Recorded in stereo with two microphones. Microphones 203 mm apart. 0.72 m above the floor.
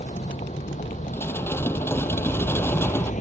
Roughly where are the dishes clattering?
Centre.